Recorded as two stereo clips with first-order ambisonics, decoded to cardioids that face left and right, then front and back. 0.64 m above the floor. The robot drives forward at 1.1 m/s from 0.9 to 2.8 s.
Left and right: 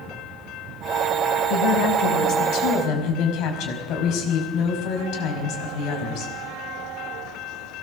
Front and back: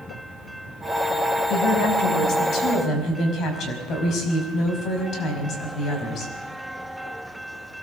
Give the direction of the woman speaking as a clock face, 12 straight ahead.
11 o'clock.